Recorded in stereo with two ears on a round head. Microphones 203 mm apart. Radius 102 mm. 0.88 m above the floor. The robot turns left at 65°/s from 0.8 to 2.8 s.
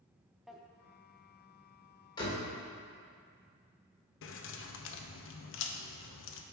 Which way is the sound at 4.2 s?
60° left (ahead or behind).